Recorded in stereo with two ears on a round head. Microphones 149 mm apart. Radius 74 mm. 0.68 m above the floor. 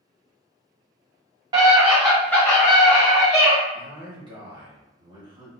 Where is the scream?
25° right (ahead or behind), 0.8 m; by 3.6 s 45° left (ahead or behind), 1.1 m.